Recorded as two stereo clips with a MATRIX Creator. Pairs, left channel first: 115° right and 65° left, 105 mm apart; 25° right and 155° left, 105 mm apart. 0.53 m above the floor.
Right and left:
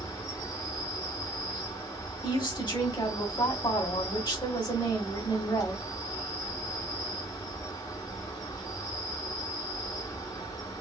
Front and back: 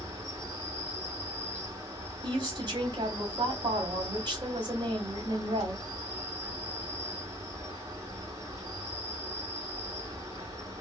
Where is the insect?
155° right, 1.9 m.